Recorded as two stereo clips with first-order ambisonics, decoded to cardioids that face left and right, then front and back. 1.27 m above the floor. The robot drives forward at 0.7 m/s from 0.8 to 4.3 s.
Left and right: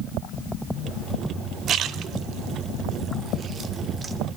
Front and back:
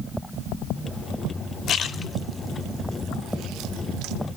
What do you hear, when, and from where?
1.7 s a splash: 45° right, 0.8 m; by 4.2 s 160° right, 1.5 m